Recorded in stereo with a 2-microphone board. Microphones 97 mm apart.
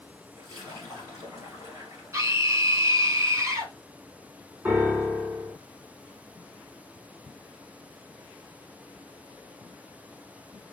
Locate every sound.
0.4 s a splash: 35° right (ahead or behind), 2.5 m
2.1 s a scream: 30° right (ahead or behind), 1.4 m
4.7 s a piano: 20° right (ahead or behind), 1.9 m